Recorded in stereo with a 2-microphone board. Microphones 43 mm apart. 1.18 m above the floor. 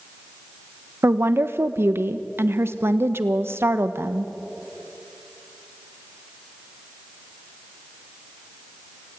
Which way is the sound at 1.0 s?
65° right (ahead or behind).